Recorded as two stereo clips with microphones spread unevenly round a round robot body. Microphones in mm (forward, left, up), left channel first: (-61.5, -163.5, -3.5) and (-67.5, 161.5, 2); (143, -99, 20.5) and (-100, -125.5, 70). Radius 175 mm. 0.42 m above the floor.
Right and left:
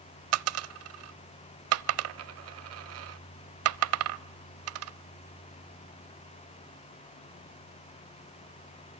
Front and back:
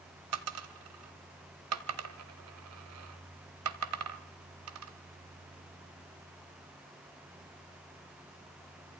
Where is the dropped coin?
140° left, 0.7 m.